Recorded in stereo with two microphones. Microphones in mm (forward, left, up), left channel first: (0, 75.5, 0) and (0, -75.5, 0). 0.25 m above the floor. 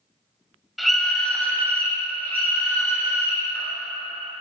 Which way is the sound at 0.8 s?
Centre (ahead or behind).